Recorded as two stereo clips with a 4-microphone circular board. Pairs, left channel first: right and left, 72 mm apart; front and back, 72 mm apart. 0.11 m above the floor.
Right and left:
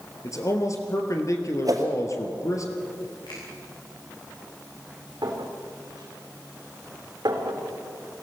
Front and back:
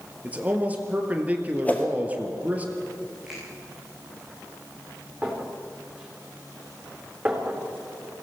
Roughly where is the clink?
Left.